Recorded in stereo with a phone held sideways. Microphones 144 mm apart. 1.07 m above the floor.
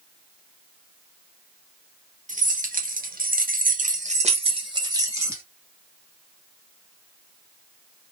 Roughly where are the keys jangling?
Right.